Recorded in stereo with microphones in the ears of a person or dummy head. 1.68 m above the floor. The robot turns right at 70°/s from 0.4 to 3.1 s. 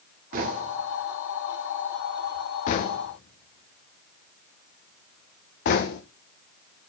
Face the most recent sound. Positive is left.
turn(degrees=45)  # may be behind; listen again after turning